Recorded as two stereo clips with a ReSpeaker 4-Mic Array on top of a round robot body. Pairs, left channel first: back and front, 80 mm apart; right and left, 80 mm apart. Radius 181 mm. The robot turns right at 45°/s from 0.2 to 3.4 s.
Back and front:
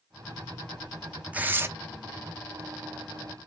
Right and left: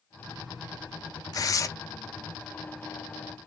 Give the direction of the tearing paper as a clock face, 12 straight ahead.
2 o'clock.